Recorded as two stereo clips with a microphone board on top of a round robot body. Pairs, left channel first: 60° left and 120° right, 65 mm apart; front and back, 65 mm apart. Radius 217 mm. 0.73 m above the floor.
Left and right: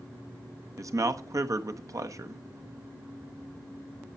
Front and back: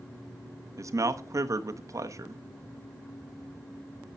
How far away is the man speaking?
About 1.4 m.